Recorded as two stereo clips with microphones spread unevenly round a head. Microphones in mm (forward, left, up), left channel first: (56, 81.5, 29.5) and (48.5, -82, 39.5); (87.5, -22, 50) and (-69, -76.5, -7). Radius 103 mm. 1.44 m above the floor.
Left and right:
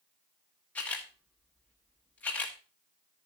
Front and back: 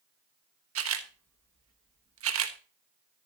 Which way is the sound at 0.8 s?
170° left.